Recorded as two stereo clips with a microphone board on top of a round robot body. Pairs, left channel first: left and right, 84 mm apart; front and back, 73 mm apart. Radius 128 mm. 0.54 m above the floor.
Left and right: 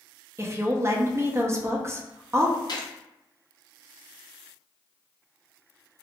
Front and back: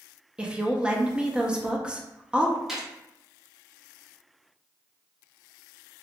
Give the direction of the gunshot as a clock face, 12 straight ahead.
9 o'clock.